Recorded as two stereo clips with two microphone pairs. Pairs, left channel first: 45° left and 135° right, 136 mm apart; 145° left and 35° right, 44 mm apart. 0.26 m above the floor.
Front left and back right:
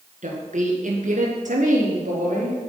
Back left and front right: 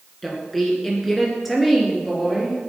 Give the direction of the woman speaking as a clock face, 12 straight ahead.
4 o'clock.